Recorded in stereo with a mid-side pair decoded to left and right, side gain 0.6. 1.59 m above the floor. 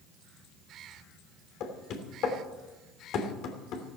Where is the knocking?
60° left, 3 m.